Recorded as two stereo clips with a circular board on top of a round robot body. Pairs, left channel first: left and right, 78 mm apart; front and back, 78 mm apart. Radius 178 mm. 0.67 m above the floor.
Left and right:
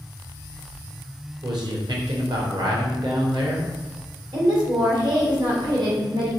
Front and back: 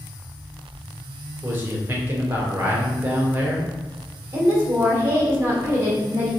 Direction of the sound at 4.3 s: 120° right.